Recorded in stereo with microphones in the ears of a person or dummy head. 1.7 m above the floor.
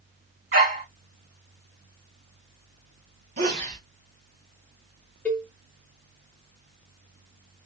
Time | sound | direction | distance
0.5 | a dog barking | 40° right (ahead or behind) | 1.7 m
3.4 | a sneeze | 40° right (ahead or behind) | 1.3 m
5.2 | a cowbell | 5° left (ahead or behind) | 0.9 m